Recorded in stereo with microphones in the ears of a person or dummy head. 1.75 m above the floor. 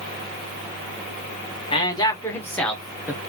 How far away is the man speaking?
About 2 m.